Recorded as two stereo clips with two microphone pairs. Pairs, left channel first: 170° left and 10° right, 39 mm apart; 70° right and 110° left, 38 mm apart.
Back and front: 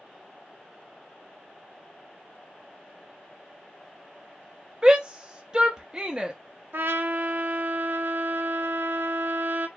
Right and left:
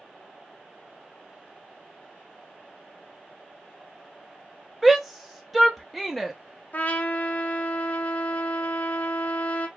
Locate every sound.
4.8 s a shout: 10° left, 0.7 m
6.7 s a trumpet: 25° right, 0.6 m